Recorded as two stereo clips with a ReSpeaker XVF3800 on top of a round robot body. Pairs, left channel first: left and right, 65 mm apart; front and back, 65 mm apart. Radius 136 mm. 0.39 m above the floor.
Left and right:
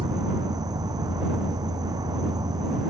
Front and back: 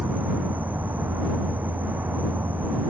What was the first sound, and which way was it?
An insect, 115° right.